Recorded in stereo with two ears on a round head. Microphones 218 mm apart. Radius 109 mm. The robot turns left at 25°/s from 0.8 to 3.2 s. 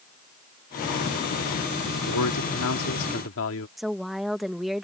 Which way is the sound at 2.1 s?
85° left.